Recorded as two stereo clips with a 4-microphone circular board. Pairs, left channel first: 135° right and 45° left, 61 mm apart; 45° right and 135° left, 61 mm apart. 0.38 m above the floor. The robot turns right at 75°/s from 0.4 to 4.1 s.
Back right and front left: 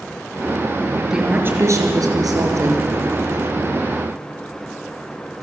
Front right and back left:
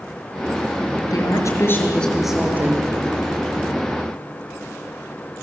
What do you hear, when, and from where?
1.1 s a woman speaking: 40° right, 6 m; by 2.8 s 90° left, 6 m